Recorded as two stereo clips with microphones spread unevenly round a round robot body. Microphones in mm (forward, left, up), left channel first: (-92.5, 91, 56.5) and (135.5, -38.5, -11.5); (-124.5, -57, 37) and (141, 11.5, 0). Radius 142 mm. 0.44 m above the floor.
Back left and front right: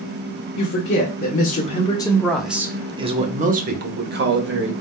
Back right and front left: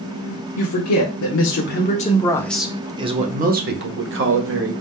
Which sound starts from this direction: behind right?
A man speaking, at 0.6 s.